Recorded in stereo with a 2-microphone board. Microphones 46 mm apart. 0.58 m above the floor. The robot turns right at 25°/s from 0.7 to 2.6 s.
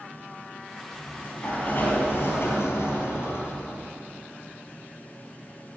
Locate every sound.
0.9 s a sliding door: 25° left, 3 m; by 3.9 s 70° left, 3 m